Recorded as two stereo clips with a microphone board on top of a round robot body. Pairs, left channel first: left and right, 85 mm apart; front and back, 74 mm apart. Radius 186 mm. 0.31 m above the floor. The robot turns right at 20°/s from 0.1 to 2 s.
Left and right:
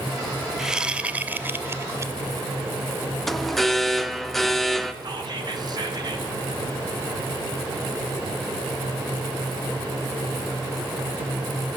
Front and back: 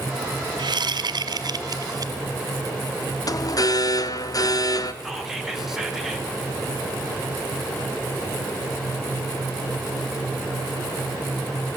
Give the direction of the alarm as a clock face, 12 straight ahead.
12 o'clock.